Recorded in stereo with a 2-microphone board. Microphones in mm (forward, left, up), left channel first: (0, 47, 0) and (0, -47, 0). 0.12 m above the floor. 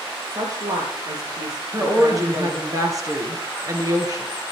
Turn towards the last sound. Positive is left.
turn(degrees=-40)  # may be behind; listen again after turning